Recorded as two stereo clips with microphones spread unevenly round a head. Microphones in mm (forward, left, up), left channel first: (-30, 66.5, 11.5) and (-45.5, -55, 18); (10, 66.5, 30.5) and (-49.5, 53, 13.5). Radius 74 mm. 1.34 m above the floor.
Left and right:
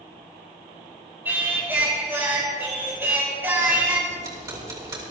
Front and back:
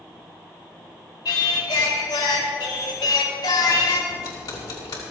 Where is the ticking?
30° right, 2.5 m.